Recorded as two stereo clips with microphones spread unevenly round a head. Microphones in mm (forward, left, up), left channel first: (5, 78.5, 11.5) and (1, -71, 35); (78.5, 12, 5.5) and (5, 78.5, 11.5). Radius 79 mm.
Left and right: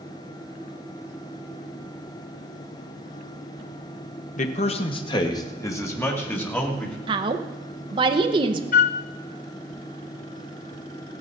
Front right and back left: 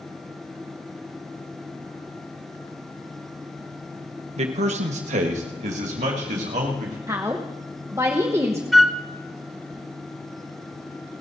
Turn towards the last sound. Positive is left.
turn(degrees=50)